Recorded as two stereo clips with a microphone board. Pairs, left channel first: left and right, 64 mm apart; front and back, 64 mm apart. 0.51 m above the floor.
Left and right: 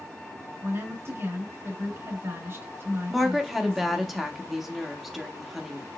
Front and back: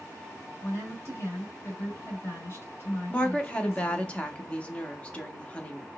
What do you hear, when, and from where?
0.6 s a woman speaking: 45° right, 2 m
3.1 s a woman speaking: 5° right, 0.7 m